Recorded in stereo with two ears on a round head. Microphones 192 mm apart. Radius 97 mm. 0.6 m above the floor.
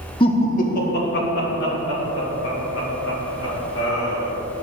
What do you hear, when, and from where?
0.2 s laughter: 25° left (ahead or behind), 0.9 m; by 4.3 s 65° left (ahead or behind), 4.5 m